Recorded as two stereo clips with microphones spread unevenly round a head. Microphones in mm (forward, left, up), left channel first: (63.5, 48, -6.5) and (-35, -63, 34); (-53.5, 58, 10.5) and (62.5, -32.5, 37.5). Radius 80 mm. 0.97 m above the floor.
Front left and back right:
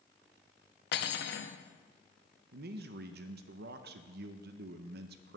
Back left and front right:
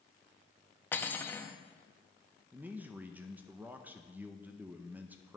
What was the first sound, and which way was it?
Cutlery clinking, 65° left.